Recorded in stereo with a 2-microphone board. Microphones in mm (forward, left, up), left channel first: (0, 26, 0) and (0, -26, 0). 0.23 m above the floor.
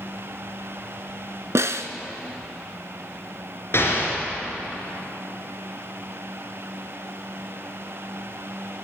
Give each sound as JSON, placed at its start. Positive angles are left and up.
{"t": 1.6, "sound": "a snare drum", "side_deg": -65, "distance_m": 0.6}
{"t": 3.7, "sound": "an explosion", "side_deg": 55, "distance_m": 3.0}